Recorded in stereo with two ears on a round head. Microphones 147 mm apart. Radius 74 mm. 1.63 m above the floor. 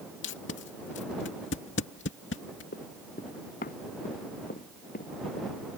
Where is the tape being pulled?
80° left.